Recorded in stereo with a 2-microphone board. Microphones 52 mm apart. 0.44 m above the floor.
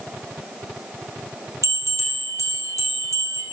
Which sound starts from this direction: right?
A bell, at 1.6 s.